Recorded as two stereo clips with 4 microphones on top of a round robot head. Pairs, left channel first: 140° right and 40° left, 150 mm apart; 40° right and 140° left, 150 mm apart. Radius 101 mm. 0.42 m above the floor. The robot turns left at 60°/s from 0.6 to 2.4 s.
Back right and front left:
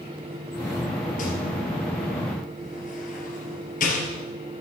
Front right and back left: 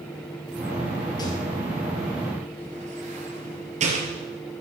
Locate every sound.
1.2 s a rattle: 105° right, 3 m; by 4.3 s 175° right, 3 m